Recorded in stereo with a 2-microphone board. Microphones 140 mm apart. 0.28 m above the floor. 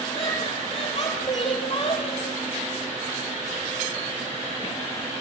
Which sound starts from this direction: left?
Laughter, at 0.1 s.